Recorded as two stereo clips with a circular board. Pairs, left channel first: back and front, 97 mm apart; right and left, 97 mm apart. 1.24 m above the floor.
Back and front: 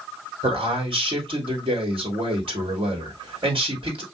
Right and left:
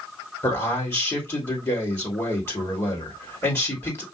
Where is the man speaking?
30° right, 2.5 m.